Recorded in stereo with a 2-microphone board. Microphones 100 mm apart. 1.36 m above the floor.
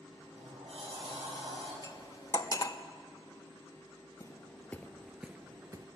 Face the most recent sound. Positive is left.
turn(degrees=-40)  # may be behind; listen again after turning